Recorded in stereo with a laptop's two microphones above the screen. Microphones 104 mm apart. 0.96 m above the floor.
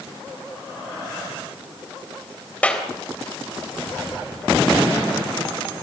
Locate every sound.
2.6 s a clap: 10° left (ahead or behind), 3.5 m